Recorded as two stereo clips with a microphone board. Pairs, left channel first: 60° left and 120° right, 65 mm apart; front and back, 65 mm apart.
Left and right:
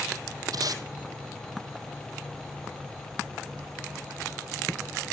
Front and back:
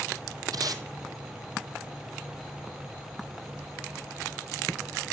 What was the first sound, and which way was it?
Tape being pulled, 150° right.